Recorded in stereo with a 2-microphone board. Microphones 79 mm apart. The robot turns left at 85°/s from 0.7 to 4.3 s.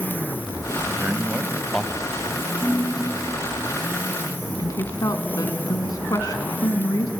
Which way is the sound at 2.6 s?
155° right.